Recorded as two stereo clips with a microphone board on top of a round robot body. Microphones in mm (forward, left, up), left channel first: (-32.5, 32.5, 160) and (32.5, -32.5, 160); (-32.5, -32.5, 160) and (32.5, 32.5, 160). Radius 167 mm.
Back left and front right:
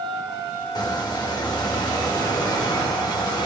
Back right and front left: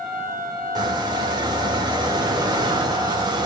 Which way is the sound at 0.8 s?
90° left.